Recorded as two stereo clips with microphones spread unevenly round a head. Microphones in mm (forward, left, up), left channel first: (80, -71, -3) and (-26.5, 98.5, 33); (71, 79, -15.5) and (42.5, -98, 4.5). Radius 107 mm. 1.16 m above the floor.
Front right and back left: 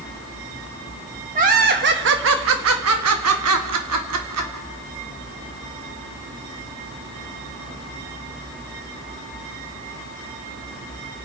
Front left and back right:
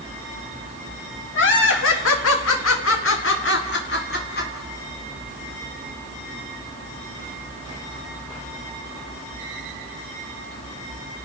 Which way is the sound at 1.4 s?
70° left.